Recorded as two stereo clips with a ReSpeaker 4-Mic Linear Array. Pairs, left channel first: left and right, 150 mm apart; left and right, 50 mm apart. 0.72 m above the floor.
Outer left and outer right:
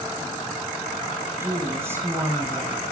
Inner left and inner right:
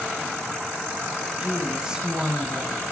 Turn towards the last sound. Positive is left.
turn(degrees=-15)  # may be behind; listen again after turning